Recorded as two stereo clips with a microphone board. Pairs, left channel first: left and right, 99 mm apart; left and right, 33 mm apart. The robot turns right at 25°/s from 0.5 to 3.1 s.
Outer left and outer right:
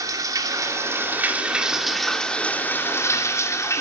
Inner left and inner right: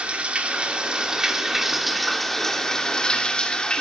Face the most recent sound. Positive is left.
turn(degrees=30)